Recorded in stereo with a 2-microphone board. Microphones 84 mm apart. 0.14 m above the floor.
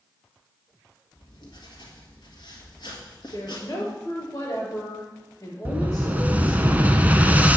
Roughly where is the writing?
Left.